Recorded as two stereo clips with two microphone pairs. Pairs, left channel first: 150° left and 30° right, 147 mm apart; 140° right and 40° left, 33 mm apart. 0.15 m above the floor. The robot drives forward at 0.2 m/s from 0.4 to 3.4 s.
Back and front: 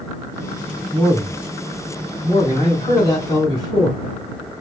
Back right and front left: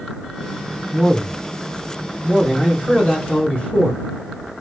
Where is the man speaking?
155° right, 1.8 m; by 4.0 s 165° right, 2 m.